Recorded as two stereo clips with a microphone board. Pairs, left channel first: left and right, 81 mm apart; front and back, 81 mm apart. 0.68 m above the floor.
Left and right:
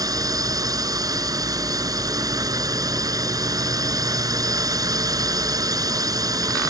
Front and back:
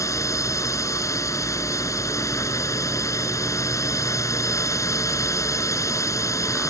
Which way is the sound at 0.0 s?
50° right.